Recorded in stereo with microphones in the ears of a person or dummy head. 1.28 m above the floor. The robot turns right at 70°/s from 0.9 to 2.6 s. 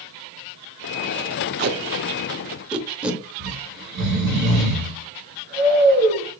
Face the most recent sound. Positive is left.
turn(degrees=-55)  # may be behind; listen again after turning